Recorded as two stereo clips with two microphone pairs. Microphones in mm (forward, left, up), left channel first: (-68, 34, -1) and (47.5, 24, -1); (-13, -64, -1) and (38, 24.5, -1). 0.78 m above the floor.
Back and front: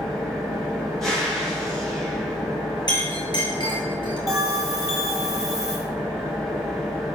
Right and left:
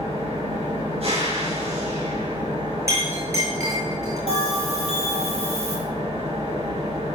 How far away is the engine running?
About 9.5 m.